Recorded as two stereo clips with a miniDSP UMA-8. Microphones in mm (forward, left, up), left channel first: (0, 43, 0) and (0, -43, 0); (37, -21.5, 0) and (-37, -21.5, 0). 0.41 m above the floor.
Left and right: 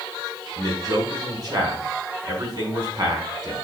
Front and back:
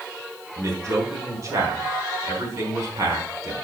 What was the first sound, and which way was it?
A man speaking, 135° right.